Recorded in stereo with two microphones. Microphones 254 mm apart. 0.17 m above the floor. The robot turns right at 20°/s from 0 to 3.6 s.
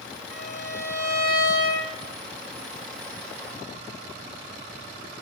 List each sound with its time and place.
0.3 s a violin: 95° left, 1.1 m; by 1.9 s 125° left, 1.1 m